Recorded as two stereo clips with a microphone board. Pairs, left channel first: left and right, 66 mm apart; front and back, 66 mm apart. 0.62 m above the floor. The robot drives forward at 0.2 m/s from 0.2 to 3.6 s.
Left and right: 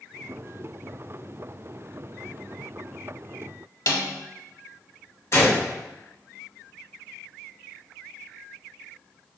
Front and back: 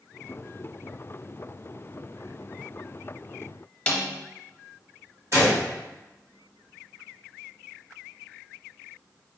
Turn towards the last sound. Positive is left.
turn(degrees=140)